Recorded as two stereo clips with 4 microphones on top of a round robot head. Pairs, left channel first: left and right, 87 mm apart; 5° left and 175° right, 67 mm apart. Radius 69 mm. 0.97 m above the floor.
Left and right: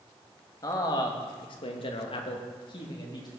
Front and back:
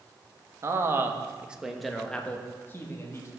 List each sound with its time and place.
0.6 s a man speaking: 145° left, 1.3 m; by 3.3 s 55° left, 1.7 m